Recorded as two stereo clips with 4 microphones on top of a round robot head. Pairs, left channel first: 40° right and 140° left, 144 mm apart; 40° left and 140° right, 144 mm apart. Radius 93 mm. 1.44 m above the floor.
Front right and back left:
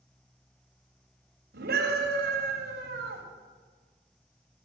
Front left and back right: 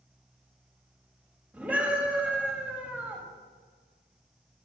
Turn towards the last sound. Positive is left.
turn(degrees=140)